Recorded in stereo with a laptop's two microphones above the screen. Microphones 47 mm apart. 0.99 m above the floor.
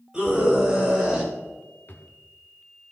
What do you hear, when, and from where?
0.1 s a scream: 15° right (ahead or behind), 5.5 m; by 1.3 s centre (ahead or behind), 5.5 m
1.9 s a drawer: 45° left (ahead or behind), 1.4 m